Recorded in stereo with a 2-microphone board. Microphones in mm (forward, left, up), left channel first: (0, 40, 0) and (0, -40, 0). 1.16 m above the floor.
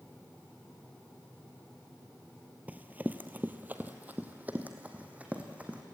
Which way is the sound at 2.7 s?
20° right (ahead or behind).